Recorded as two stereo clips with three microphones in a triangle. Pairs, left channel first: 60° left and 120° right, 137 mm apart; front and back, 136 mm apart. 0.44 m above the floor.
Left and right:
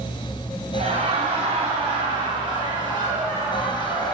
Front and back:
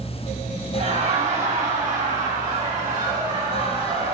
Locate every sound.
0.7 s laughter: 155° right, 3 m; by 4.2 s straight behind, 5 m